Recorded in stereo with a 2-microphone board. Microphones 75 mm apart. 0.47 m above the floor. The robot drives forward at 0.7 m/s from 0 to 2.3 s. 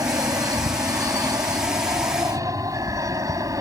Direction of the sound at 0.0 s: 50° right (ahead or behind).